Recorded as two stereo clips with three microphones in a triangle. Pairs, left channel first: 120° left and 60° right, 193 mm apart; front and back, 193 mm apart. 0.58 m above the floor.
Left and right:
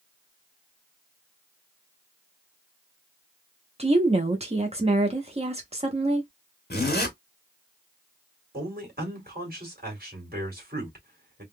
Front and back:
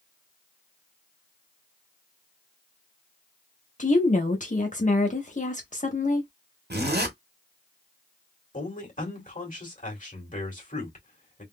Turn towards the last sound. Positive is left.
turn(degrees=-40)